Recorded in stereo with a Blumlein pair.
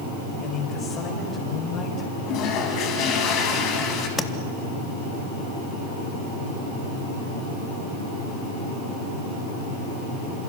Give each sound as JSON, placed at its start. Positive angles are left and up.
{"t": 0.4, "sound": "a man speaking", "azimuth_deg": 30, "distance_m": 8.0}
{"t": 2.3, "sound": "a toilet flushing", "azimuth_deg": 35, "distance_m": 4.5}
{"t": 4.2, "sound": "tapping", "azimuth_deg": 15, "distance_m": 1.5}